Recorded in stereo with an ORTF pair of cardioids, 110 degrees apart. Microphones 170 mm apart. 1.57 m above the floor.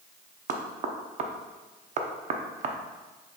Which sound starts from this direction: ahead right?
Knocking, at 0.5 s.